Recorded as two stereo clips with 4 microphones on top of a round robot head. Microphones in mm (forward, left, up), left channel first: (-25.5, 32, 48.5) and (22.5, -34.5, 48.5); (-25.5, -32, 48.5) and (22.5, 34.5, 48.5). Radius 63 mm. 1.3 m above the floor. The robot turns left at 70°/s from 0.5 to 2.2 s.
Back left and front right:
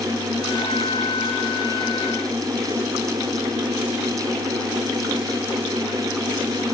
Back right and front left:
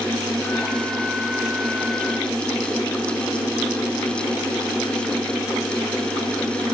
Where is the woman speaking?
I don't hear a woman speaking.